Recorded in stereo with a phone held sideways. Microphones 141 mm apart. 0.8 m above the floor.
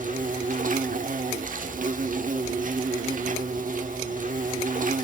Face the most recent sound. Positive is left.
turn(degrees=-70)  # may be behind; listen again after turning